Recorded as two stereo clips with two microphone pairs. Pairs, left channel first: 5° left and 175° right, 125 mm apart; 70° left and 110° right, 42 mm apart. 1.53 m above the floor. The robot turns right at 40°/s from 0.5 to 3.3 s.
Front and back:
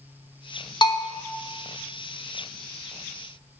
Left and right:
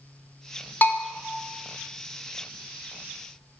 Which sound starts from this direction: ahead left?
A bell, at 0.8 s.